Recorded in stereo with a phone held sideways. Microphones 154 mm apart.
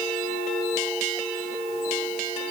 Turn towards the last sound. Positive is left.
No sound to turn to.